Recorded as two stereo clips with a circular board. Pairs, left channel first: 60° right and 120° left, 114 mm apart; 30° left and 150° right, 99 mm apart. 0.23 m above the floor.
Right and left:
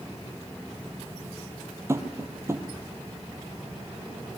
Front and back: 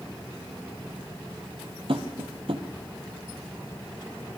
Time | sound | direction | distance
1.9 | tapping | 170° right | 2.5 m